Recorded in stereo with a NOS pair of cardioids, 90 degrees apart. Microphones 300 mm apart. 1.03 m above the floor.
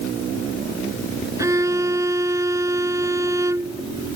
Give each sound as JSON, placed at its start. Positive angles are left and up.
{"t": 1.4, "sound": "a violin", "azimuth_deg": -10}